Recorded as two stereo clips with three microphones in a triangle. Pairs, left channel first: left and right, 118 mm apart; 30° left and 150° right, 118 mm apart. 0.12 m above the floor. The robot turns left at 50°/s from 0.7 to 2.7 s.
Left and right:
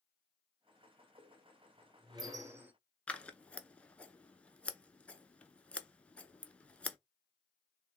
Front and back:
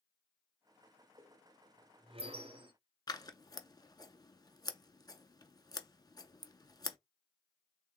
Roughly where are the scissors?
Ahead.